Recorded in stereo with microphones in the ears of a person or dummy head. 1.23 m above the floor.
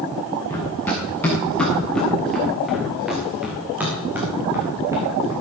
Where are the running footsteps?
15° left (ahead or behind), 7 m; by 5.3 s 20° right (ahead or behind), 5.5 m.